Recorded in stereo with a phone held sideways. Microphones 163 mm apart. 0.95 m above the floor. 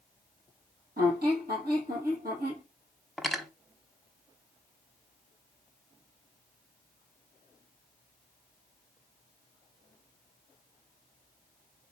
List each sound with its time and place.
1.0 s a squeak: 65° right (ahead or behind), 3 m
3.2 s cutlery clinking: centre (ahead or behind), 0.6 m